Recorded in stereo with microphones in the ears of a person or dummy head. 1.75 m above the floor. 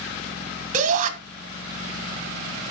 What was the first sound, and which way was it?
A shout, 45° right (ahead or behind).